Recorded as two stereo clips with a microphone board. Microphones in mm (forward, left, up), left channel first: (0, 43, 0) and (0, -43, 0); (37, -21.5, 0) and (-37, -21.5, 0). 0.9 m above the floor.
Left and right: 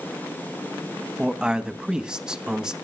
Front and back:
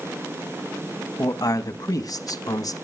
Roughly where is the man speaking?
Ahead.